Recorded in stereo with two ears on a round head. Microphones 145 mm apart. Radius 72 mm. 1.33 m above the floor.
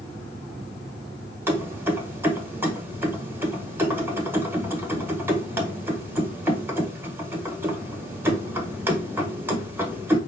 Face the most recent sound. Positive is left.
turn(degrees=-15)  # may be behind; listen again after turning